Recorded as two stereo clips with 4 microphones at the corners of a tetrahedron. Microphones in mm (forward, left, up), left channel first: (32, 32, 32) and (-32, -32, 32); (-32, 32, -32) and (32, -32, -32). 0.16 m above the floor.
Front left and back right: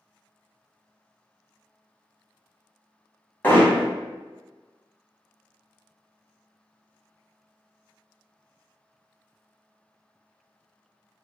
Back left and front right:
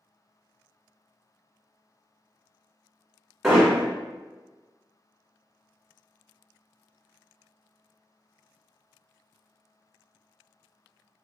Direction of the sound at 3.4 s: 40° left.